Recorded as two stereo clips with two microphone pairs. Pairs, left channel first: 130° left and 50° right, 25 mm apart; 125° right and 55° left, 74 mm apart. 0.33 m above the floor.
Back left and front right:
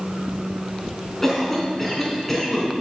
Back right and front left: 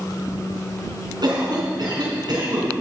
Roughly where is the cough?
Ahead left.